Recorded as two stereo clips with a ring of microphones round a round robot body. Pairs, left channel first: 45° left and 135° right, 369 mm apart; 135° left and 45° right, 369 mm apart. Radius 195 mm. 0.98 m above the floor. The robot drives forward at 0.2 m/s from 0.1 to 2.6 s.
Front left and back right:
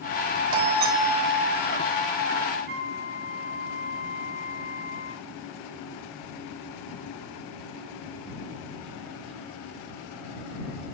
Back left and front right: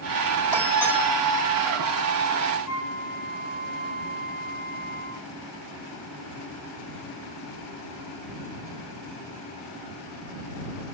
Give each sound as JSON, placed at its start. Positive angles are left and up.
{"t": 0.5, "sound": "a doorbell", "azimuth_deg": -140, "distance_m": 1.9}
{"t": 2.7, "sound": "a flute", "azimuth_deg": 160, "distance_m": 7.0}